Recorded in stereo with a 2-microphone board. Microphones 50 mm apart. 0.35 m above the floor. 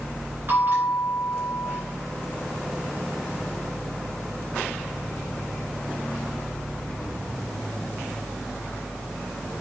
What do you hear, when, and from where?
0.5 s a bell: 45° right (ahead or behind), 3.5 m